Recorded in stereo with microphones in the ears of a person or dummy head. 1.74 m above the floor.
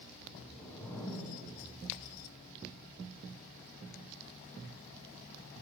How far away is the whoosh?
About 1.6 m.